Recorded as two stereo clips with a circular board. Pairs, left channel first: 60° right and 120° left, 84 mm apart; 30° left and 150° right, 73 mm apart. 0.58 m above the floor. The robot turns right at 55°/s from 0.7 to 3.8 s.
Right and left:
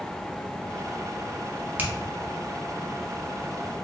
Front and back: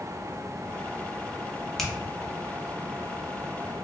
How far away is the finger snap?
About 0.6 m.